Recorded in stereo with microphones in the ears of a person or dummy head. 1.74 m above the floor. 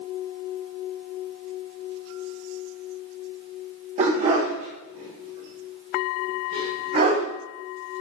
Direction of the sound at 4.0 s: 40° right (ahead or behind).